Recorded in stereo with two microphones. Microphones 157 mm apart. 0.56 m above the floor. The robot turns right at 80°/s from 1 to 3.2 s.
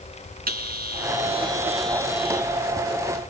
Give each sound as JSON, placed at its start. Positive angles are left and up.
{"t": 0.5, "sound": "a bell", "azimuth_deg": -65, "distance_m": 4.0}